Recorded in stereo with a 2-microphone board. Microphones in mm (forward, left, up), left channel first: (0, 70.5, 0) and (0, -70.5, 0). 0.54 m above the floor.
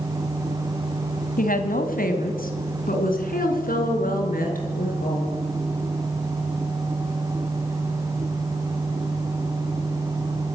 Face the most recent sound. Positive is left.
turn(degrees=75)  # may be behind; listen again after turning